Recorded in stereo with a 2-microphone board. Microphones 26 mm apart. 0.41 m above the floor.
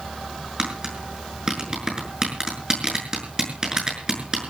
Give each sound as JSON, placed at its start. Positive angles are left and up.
{"t": 0.6, "sound": "tapping", "side_deg": -25, "distance_m": 6.5}